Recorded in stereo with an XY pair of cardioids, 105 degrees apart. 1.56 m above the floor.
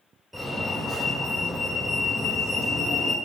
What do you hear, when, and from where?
0.3 s a fire alarm: 15° right, 3 m